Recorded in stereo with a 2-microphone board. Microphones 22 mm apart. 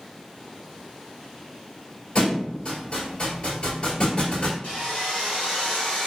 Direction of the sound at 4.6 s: 65° left (ahead or behind).